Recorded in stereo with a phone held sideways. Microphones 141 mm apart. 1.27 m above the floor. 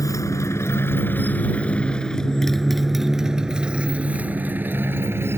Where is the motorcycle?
25° left (ahead or behind); by 5.4 s 15° right (ahead or behind).